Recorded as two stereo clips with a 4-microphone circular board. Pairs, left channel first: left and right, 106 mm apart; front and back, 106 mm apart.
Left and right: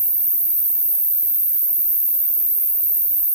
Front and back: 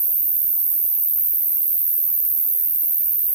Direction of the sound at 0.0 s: 160° left.